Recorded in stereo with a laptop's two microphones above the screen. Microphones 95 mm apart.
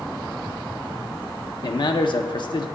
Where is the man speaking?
55° left (ahead or behind), 0.6 m.